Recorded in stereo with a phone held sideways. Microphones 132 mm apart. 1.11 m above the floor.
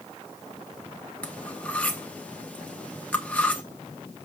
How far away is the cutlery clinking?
About 1.1 m.